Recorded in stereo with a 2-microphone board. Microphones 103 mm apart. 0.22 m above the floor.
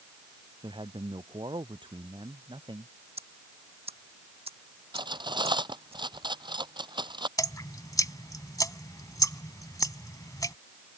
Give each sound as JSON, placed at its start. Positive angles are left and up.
{"t": 0.6, "sound": "a man speaking", "side_deg": -50}
{"t": 3.2, "sound": "ticking", "side_deg": -75}
{"t": 4.9, "sound": "cutlery clinking", "side_deg": -50}
{"t": 7.4, "sound": "dripping", "side_deg": 35}